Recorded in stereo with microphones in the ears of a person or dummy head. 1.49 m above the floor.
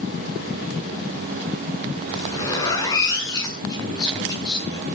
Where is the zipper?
20° left (ahead or behind), 8 m.